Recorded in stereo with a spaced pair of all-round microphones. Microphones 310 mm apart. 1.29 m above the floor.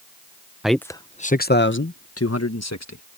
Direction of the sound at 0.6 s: Centre (ahead or behind).